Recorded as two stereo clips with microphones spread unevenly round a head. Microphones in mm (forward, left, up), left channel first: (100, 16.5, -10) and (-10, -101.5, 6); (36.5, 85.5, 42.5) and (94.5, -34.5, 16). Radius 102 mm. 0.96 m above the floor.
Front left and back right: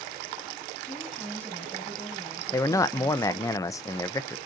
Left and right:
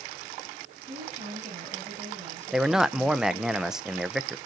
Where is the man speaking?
Straight ahead, 0.5 m.